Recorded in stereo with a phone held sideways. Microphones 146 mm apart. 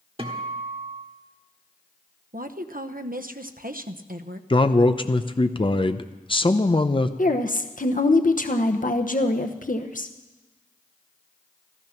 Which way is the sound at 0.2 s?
40° right (ahead or behind).